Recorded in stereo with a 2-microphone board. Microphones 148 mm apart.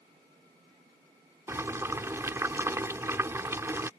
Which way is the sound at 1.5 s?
20° right (ahead or behind).